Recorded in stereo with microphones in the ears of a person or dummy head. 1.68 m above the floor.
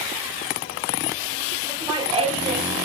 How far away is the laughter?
About 2.5 m.